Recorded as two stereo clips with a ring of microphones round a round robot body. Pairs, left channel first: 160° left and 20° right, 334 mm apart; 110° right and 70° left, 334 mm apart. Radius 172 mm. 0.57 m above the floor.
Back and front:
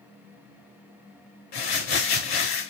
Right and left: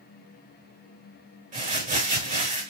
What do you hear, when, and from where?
1.5 s crumpling: 135° left, 4.5 m